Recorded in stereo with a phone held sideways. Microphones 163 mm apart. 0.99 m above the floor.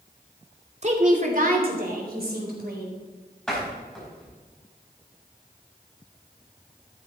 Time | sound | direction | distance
0.8 | a woman speaking | 45° right (ahead or behind) | 1.9 m
3.5 | a door slam | 5° left (ahead or behind) | 5 m